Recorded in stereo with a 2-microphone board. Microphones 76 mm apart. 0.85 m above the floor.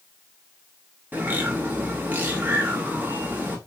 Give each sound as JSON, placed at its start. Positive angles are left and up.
{"t": 1.1, "sound": "a bird", "side_deg": -25, "distance_m": 1.0}